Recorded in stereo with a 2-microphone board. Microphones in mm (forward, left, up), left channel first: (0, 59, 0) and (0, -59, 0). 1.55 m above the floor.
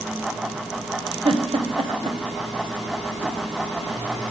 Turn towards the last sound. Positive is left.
turn(degrees=-50)  # may be behind; listen again after turning